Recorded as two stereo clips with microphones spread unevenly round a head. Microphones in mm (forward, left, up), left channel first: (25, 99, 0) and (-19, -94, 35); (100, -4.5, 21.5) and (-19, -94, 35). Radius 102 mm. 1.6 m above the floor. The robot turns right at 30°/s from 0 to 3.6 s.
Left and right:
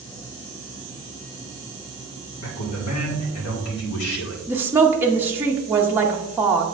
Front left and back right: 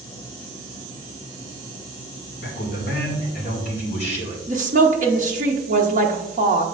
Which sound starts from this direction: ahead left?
A man speaking, at 2.4 s.